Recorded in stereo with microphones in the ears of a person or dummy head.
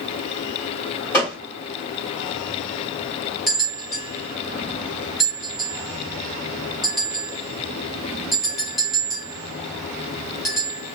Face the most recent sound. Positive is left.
turn(degrees=-10)  # may be behind; listen again after turning